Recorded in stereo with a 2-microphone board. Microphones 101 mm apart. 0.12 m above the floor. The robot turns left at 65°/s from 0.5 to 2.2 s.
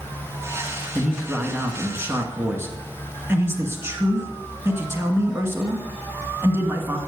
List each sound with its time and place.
0.9 s a man speaking: centre (ahead or behind), 1.2 m; by 7.0 s 25° right (ahead or behind), 1.2 m